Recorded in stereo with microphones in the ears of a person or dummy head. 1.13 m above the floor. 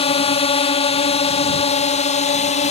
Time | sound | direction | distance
0.0 | a drone | 35° left (ahead or behind) | ?